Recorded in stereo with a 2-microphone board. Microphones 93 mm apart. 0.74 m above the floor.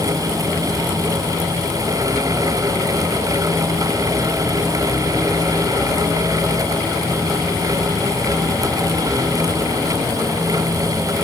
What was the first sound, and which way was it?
Only background noise.